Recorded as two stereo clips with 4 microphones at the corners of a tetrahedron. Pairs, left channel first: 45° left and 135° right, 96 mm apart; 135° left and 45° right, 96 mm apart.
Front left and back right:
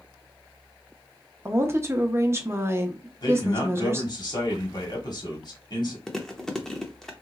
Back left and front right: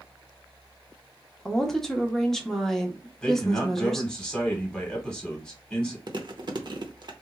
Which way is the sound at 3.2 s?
55° left.